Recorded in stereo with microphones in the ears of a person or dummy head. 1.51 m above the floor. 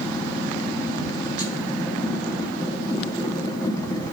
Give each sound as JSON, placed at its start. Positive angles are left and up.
{"t": 0.0, "sound": "a machine running", "side_deg": 20, "distance_m": 1.7}